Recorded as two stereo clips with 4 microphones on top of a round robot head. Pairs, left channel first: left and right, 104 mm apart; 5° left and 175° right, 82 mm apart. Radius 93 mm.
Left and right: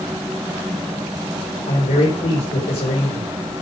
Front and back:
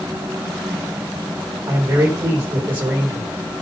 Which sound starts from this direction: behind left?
A man speaking, at 1.7 s.